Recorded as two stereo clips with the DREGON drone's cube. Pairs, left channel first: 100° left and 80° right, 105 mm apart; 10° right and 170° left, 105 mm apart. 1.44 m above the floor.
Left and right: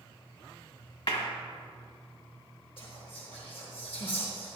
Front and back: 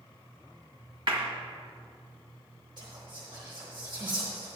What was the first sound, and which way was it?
A clap, 130° left.